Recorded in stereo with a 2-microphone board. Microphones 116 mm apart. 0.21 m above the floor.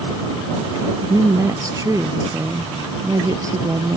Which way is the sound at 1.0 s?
30° right (ahead or behind).